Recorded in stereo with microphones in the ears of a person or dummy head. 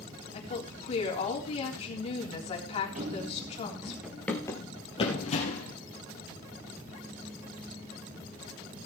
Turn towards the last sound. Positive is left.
turn(degrees=45)  # may be behind; listen again after turning